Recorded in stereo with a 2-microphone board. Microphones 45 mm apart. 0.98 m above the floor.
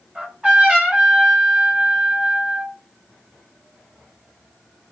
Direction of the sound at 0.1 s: 30° right (ahead or behind).